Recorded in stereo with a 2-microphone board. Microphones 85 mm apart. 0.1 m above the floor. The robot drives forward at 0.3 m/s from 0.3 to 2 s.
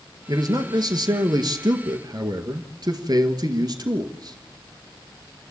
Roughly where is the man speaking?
Right.